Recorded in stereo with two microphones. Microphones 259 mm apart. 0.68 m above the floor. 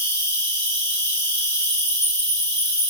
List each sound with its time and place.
0.0 s an insect: 10° left (ahead or behind), 2 m